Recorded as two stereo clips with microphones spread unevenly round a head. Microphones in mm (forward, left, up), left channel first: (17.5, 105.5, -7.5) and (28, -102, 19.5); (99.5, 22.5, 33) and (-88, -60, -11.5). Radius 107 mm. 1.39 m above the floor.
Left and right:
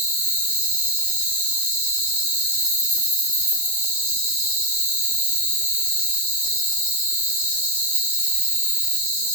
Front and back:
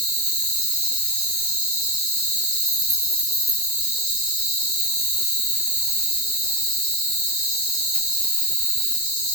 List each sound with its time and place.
0.0 s an insect: 125° right, 1.2 m